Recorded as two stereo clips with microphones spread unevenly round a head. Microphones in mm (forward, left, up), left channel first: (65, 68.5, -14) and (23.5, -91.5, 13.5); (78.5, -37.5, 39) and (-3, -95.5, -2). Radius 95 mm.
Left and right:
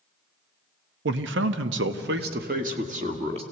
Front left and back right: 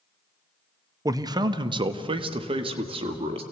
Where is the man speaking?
105° right, 1.1 m; by 3.4 s 165° right, 1.9 m.